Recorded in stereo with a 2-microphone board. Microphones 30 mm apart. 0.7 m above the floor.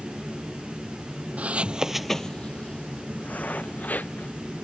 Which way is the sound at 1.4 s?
55° right (ahead or behind).